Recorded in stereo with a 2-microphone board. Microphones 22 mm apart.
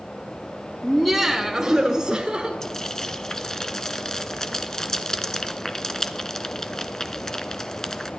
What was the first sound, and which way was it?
Laughter, 5° left (ahead or behind).